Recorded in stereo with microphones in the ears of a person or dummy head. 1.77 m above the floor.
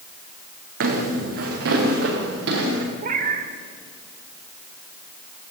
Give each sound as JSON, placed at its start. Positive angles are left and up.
{"t": 0.8, "sound": "footsteps", "side_deg": -65, "distance_m": 5.5}
{"t": 3.0, "sound": "a cat meowing", "side_deg": -55, "distance_m": 2.5}